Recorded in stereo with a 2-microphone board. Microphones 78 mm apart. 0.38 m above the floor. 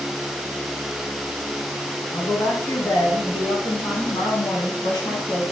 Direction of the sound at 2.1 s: 45° left (ahead or behind).